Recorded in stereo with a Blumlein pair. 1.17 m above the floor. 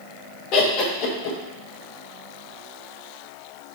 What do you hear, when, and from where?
0.5 s laughter: 40° left, 0.7 m